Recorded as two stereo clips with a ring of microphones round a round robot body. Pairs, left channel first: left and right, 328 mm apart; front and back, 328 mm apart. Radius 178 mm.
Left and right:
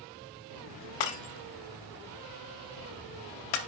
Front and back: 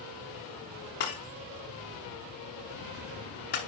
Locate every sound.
1.0 s breaking glass: 65° left, 0.8 m